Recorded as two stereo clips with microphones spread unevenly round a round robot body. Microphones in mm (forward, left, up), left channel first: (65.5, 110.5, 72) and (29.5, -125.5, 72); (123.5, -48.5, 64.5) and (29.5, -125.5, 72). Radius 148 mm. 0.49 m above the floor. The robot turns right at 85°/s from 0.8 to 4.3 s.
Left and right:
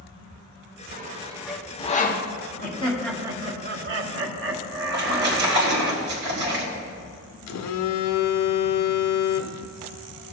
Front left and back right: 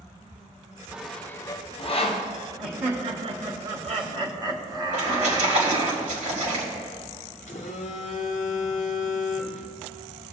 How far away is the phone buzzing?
About 0.6 m.